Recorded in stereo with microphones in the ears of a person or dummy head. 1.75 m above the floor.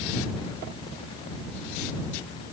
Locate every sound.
Only background noise.